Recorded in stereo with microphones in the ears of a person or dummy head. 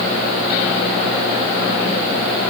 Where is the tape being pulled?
No tape being pulled in this recording.